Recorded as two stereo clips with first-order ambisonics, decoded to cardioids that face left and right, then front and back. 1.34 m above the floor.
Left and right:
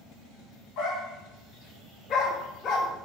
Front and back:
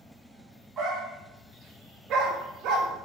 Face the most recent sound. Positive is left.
turn(degrees=145)